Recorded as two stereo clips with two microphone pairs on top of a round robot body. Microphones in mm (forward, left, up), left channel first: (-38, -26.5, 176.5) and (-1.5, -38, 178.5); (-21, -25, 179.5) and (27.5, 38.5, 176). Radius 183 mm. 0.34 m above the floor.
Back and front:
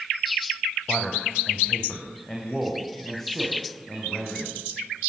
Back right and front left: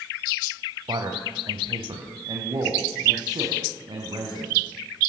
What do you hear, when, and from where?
0.9 s a man speaking: 85° left, 3.5 m; by 4.6 s 80° left, 5.5 m